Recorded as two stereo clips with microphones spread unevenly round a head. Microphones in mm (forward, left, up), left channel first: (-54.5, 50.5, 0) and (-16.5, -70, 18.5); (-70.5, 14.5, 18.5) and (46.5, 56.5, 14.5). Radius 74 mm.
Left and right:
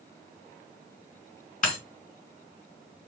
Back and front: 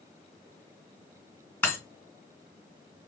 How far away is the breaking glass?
About 3 m.